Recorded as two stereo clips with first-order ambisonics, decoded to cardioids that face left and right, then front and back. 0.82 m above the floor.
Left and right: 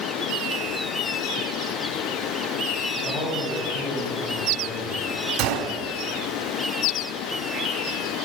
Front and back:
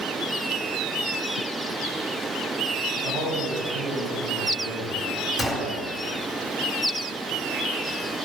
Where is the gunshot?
90° right, 1.8 m.